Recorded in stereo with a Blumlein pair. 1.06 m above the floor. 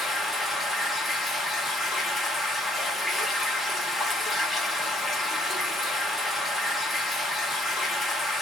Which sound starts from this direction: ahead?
Running water, at 0.0 s.